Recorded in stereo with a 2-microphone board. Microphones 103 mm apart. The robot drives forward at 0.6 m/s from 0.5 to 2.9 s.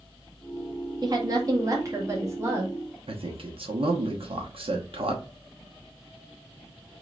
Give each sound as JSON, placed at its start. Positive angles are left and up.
{"t": 1.0, "sound": "a woman speaking", "side_deg": -40, "distance_m": 1.3}
{"t": 3.1, "sound": "a man speaking", "side_deg": -60, "distance_m": 1.1}